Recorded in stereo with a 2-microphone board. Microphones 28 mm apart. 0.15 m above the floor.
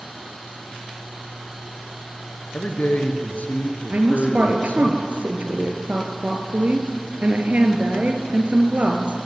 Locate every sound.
2.5 s a man speaking: 60° left (ahead or behind), 3 m
3.9 s a woman speaking: 50° right (ahead or behind), 3 m